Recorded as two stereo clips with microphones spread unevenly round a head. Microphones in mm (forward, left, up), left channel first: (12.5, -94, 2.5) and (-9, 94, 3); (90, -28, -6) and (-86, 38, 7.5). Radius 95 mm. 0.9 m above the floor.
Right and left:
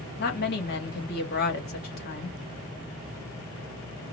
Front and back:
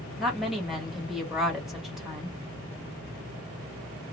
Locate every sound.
0.2 s a woman speaking: 110° right, 1.3 m